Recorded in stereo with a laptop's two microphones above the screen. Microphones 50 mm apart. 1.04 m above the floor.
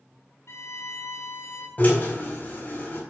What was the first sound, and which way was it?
A violin, 70° left (ahead or behind).